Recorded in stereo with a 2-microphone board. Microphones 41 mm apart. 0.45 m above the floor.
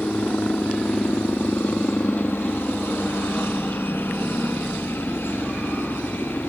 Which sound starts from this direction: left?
A helicopter, at 0.0 s.